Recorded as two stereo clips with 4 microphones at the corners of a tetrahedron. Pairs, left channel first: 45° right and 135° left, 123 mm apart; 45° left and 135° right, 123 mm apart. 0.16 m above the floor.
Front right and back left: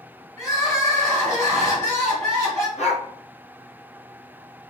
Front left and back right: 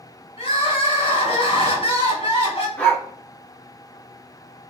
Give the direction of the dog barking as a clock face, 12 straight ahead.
1 o'clock.